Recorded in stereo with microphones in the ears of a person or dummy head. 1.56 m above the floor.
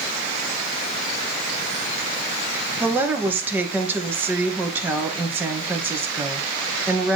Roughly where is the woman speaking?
Centre.